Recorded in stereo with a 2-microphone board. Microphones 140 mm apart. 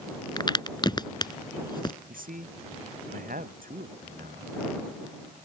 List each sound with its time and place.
0.4 s a crack: 30° left (ahead or behind)
2.1 s a man speaking: 80° right